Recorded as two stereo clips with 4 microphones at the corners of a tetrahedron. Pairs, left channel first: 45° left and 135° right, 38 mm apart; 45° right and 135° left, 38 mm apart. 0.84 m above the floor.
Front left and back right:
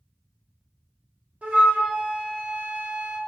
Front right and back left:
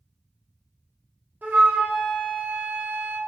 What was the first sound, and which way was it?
A flute, 175° left.